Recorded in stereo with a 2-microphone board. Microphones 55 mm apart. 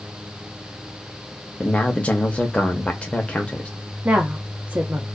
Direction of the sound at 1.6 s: 20° left (ahead or behind).